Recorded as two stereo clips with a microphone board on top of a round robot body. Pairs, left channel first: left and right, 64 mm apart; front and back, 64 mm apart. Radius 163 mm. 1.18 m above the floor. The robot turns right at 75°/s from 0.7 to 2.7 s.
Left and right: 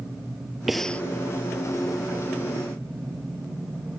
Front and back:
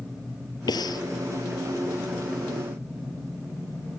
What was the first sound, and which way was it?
Breathing, straight ahead.